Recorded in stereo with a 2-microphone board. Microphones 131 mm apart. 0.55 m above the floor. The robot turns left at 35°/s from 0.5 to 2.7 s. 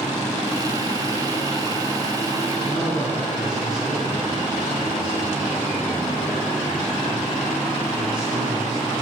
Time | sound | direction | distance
2.6 | a man speaking | 10° right (ahead or behind) | 5 m